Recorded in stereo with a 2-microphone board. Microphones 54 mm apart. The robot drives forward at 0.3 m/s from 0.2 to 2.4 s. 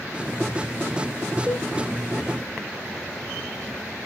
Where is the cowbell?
25° right (ahead or behind), 1.0 m.